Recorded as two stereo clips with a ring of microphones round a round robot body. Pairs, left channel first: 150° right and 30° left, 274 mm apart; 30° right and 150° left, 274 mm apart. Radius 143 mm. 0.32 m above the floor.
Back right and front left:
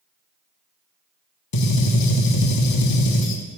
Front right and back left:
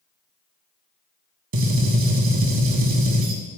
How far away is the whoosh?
I don't hear a whoosh.